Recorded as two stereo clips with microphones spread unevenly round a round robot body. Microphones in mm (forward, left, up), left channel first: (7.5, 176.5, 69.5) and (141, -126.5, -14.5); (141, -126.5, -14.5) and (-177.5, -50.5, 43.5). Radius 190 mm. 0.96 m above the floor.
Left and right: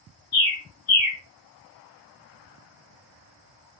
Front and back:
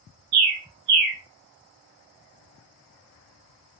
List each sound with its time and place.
0.3 s a bird: 135° left, 1.1 m